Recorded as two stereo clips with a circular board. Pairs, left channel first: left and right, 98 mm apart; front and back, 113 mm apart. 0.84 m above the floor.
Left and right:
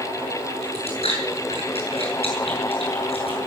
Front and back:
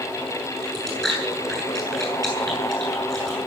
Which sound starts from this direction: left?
Chewing, at 0.6 s.